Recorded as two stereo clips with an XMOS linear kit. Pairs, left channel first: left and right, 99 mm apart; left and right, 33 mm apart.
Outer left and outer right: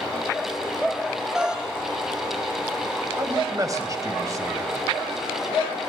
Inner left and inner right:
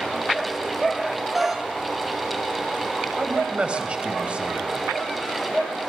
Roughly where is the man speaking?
Right.